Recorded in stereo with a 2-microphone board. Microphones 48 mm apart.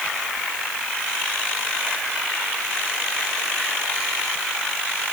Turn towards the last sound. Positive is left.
No sound to turn to.